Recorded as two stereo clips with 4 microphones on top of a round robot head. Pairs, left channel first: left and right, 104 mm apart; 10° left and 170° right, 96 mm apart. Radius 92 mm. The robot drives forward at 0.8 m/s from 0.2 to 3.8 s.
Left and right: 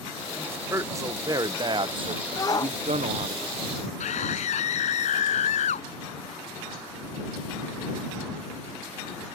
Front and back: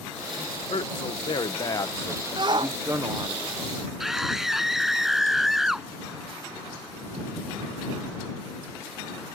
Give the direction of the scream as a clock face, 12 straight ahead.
9 o'clock.